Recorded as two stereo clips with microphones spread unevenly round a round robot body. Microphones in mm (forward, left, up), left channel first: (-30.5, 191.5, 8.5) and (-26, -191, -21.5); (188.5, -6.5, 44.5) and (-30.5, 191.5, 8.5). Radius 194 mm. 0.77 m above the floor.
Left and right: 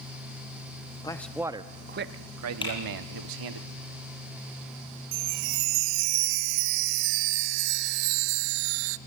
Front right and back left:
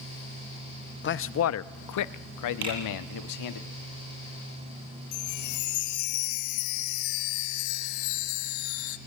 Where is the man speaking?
10° left, 0.8 m; by 3.6 s 60° right, 1.5 m.